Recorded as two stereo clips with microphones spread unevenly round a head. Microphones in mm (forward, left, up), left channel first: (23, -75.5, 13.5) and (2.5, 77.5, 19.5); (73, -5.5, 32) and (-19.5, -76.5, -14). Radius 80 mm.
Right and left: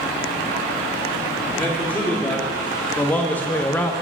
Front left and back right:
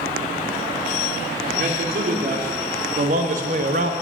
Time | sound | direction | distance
1.5 | a man speaking | 165° right | 3.5 m